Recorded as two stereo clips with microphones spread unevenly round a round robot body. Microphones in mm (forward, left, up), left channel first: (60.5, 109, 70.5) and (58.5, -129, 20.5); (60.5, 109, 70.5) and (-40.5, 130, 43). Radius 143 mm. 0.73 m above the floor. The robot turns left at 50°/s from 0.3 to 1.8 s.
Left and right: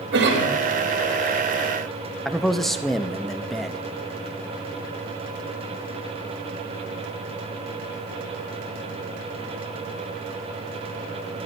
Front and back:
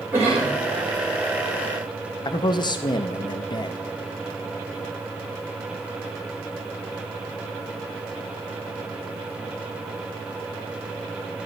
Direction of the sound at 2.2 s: 20° right.